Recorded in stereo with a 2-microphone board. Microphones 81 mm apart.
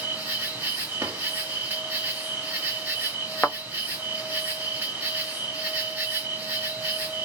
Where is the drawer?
30° right (ahead or behind), 1.3 m.